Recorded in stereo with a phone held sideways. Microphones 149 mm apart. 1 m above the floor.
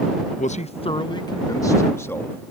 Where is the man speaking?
55° left (ahead or behind); by 2.5 s 15° left (ahead or behind).